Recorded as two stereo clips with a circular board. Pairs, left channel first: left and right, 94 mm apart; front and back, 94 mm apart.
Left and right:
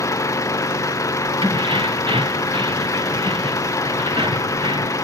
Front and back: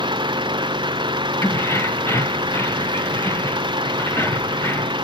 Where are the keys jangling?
65° right.